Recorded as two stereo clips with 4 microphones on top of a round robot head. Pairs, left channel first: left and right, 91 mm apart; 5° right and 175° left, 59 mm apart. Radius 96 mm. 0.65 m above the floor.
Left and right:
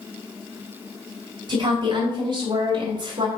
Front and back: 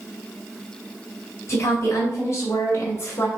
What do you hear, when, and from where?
1.5 s a woman speaking: 50° right, 3 m